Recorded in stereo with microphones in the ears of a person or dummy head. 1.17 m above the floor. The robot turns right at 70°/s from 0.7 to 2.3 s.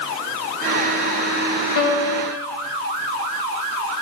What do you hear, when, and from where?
1.8 s a piano: 65° left, 2 m; by 2.4 s 105° left, 2 m